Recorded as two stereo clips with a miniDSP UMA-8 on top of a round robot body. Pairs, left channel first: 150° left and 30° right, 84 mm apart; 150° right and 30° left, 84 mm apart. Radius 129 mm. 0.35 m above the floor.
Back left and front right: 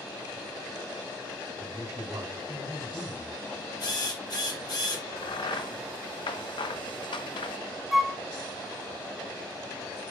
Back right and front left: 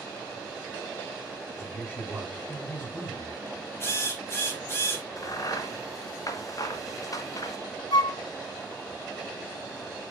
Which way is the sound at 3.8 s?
160° left.